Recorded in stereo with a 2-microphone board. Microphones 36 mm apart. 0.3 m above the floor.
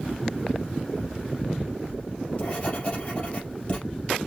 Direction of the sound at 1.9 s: 35° left (ahead or behind).